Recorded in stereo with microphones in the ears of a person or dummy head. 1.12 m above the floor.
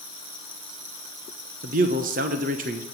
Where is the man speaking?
45° right (ahead or behind), 0.9 m.